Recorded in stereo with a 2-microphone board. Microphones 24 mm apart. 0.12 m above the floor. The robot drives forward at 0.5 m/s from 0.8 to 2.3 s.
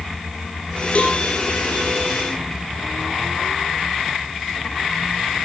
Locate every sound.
0.9 s a cowbell: 50° left (ahead or behind), 4 m; by 1.2 s 55° left (ahead or behind), 4 m